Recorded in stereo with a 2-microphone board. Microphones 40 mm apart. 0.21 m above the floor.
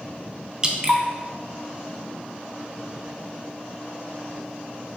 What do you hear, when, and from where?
0.6 s dripping: 25° right (ahead or behind), 0.5 m